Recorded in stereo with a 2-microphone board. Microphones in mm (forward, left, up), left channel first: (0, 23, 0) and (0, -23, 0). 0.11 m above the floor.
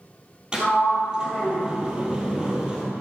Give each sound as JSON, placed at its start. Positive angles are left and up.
{"t": 0.5, "sound": "a sliding door", "side_deg": -20, "distance_m": 1.7}